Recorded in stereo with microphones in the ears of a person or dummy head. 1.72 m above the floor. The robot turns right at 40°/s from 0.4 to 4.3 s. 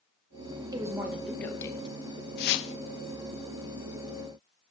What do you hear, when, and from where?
0.7 s a woman speaking: 20° right, 2 m; by 2.0 s 30° left, 2 m
2.4 s a whoosh: 50° left (ahead or behind), 0.8 m; by 2.7 s 65° left (ahead or behind), 0.8 m